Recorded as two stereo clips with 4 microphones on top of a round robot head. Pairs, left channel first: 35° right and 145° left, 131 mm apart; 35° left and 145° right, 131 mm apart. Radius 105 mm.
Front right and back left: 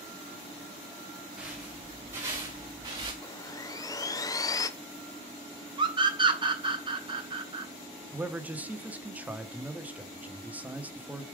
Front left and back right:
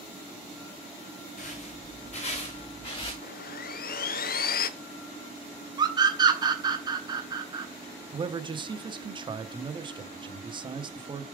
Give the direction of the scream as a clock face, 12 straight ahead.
6 o'clock.